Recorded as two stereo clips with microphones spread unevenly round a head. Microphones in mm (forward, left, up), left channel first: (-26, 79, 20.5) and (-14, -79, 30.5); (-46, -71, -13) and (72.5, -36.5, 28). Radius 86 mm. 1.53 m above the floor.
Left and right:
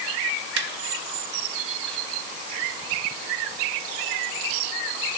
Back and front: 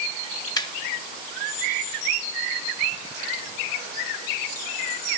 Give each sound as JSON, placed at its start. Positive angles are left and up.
{"t": 0.6, "sound": "laughter", "azimuth_deg": -100, "distance_m": 0.9}